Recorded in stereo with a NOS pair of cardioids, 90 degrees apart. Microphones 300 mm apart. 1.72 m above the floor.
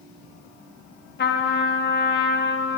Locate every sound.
1.2 s a trumpet: 35° left, 0.8 m